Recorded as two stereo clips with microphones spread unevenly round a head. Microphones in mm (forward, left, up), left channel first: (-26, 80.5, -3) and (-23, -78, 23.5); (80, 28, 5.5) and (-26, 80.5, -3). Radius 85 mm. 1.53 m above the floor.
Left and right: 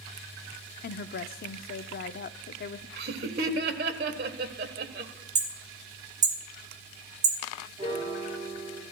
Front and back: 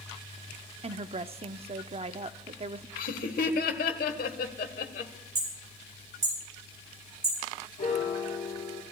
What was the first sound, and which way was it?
A woman speaking, 115° left.